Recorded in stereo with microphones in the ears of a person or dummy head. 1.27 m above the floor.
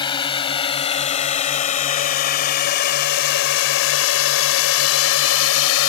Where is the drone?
25° left (ahead or behind); by 5.9 s 85° left.